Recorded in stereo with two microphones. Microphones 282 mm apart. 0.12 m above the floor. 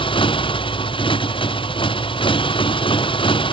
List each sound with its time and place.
0.0 s a motorcycle: 20° left (ahead or behind)